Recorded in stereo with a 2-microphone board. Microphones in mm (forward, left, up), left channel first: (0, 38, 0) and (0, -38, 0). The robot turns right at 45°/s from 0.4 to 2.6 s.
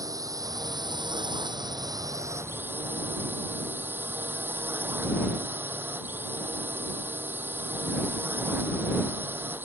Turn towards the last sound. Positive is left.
turn(degrees=-25)